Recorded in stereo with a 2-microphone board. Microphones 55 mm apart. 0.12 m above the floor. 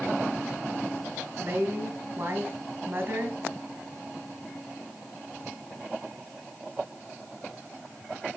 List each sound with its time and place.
1.4 s a woman speaking: 35° right (ahead or behind), 1.8 m